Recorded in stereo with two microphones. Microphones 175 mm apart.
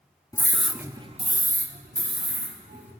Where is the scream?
20° left (ahead or behind), 0.7 m; by 2.9 s 75° right (ahead or behind), 2 m.